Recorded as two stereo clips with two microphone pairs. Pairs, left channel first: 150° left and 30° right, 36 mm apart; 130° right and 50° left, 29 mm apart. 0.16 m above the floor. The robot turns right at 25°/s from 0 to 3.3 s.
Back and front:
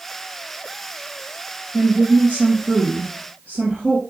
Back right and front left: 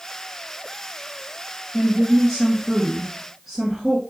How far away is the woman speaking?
About 2 m.